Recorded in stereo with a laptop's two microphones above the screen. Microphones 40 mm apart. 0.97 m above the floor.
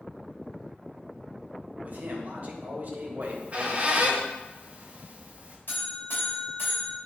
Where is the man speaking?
40° right (ahead or behind), 1.2 m.